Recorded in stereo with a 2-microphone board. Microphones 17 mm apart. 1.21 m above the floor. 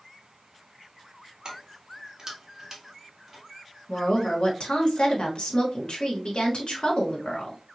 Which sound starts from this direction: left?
A woman speaking, at 3.9 s.